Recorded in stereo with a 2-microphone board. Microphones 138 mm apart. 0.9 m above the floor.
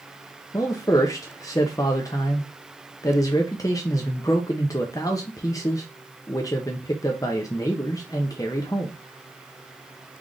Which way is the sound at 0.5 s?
25° left (ahead or behind).